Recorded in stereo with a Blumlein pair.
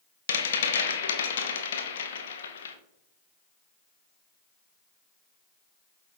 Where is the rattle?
65° left, 0.6 m.